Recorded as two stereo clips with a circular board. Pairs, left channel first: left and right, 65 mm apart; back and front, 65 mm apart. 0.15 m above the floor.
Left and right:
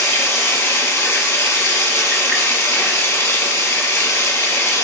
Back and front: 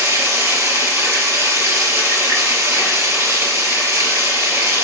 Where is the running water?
45° left, 1.4 m.